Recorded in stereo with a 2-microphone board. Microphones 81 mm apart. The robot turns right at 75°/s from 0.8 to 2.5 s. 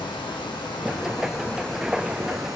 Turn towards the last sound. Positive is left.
turn(degrees=-125)